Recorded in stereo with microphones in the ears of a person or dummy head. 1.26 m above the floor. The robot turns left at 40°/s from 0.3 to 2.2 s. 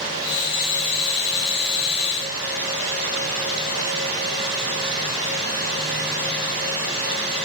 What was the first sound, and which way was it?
Only background noise.